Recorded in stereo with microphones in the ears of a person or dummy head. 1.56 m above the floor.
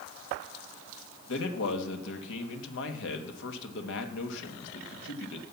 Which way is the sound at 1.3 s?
65° left (ahead or behind).